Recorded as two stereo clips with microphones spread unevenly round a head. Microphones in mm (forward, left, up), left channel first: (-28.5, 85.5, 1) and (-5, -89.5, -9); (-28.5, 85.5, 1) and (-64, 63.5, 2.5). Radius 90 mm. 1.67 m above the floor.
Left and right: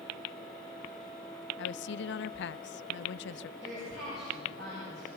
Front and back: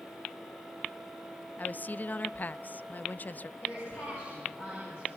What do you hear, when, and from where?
1.6 s a woman speaking: 80° left, 0.5 m
3.6 s a woman speaking: 50° right, 10 m